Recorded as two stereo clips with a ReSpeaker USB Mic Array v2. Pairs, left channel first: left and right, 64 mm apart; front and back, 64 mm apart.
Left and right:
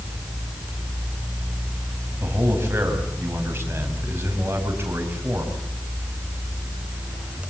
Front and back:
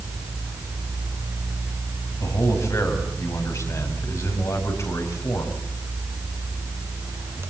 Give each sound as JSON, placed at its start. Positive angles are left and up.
{"t": 2.2, "sound": "a man speaking", "azimuth_deg": -35, "distance_m": 5.5}